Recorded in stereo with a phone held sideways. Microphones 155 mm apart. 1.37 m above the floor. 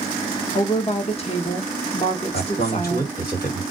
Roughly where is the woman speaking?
Left.